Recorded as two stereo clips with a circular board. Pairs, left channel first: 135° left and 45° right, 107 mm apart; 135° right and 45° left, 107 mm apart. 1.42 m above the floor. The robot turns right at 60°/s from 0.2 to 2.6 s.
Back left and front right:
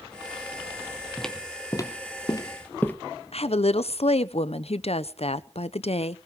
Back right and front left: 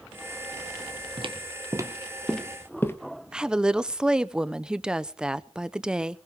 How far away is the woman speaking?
About 0.8 m.